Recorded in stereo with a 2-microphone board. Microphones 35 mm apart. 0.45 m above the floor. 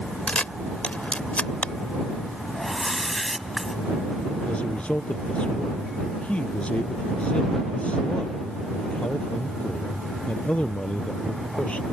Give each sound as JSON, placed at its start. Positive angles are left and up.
{"t": 0.3, "sound": "a camera shutter", "side_deg": 40}
{"t": 2.5, "sound": "a whoosh", "side_deg": 5}
{"t": 4.5, "sound": "a man speaking", "side_deg": 40}